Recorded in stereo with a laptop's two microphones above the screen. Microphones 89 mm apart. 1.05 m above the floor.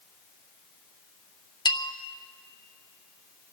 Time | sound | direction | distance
1.6 | a bell | 50° left (ahead or behind) | 0.7 m